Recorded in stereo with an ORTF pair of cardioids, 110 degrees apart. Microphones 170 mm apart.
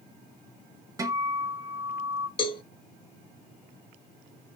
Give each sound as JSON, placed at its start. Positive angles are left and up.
{"t": 1.0, "sound": "a guitar", "azimuth_deg": -20, "distance_m": 0.9}
{"t": 2.4, "sound": "a cowbell", "azimuth_deg": 30, "distance_m": 0.9}